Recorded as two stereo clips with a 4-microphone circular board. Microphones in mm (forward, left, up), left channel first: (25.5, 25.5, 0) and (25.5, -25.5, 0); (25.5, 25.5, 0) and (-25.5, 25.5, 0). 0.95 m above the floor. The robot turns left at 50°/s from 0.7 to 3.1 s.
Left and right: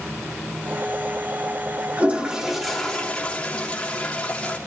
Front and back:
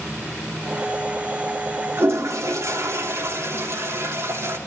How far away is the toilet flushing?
About 2.5 m.